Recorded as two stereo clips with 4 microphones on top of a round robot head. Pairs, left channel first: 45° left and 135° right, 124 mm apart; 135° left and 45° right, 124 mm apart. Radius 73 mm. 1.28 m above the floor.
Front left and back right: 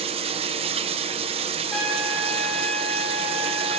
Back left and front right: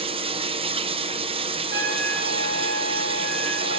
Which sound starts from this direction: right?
Running water, at 0.0 s.